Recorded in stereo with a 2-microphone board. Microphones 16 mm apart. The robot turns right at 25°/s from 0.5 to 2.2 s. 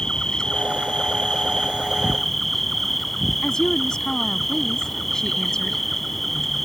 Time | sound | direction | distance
0.0 | an insect | 130° left | ?
3.4 | a woman speaking | 45° left (ahead or behind) | ?